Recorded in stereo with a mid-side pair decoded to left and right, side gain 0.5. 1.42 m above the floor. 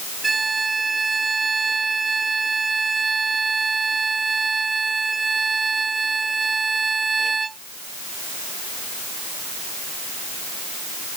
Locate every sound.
0.2 s a violin: 25° right